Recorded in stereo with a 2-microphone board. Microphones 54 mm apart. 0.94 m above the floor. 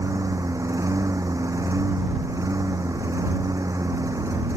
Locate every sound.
0.0 s a lawn mower: 80° right